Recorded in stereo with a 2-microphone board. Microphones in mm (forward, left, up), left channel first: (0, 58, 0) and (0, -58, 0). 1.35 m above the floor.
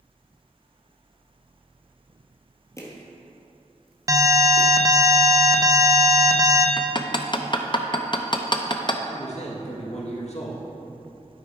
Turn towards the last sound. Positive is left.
turn(degrees=65)  # may be behind; listen again after turning